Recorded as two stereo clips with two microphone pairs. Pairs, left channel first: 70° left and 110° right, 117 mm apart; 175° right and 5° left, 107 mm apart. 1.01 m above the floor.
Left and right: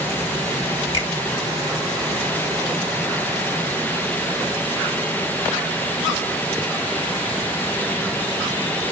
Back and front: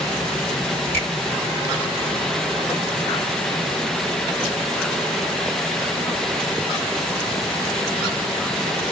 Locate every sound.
0.9 s a finger snap: 110° left, 1.4 m